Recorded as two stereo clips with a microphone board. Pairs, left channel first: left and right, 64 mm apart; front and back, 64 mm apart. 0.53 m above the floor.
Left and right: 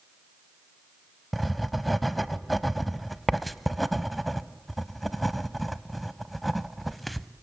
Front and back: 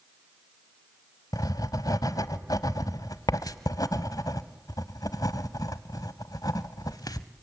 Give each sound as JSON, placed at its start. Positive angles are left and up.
{"t": 1.3, "sound": "writing", "azimuth_deg": 0, "distance_m": 0.8}